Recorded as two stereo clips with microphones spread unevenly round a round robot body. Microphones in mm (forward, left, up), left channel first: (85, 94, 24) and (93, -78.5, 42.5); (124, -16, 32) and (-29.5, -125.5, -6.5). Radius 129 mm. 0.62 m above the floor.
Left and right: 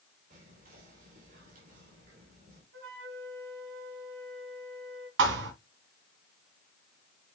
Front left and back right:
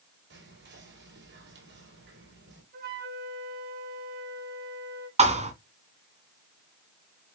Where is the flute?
110° right, 3.5 m.